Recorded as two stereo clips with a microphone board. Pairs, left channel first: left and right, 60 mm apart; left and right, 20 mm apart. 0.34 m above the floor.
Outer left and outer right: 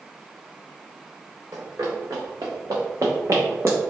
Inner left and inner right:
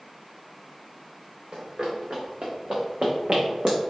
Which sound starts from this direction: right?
Running footsteps, at 1.5 s.